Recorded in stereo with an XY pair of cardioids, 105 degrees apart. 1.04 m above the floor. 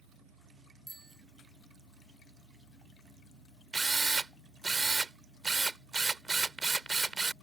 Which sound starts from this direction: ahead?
A bicycle bell, at 0.9 s.